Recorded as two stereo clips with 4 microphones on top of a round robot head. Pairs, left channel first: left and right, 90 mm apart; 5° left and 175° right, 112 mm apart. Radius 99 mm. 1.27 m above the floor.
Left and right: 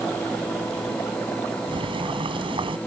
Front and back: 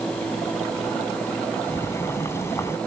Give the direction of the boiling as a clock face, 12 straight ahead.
2 o'clock.